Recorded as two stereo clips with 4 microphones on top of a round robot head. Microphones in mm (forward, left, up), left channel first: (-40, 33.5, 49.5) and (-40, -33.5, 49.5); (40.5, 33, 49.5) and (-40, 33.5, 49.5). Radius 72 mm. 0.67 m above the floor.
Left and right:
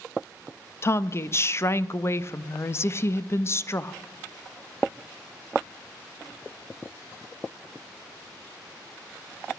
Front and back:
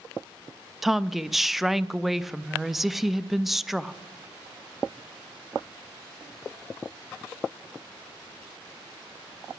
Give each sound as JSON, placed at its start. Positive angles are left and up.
{"t": 0.8, "sound": "a woman speaking", "azimuth_deg": 95, "distance_m": 0.6}